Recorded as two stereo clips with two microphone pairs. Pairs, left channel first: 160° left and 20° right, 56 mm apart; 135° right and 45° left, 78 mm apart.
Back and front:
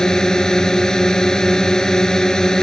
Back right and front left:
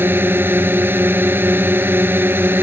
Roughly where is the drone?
Left.